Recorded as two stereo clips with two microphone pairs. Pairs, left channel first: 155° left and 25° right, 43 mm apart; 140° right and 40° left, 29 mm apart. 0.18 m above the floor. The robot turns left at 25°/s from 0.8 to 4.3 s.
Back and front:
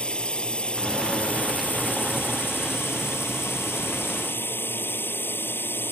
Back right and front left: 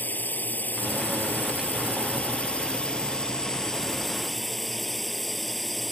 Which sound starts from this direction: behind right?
A drone, at 0.0 s.